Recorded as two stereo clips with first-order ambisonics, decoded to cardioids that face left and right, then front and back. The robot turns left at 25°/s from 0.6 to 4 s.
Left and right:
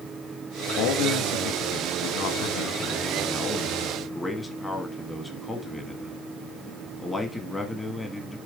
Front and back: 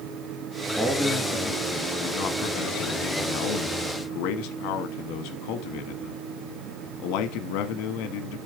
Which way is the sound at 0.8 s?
90° left.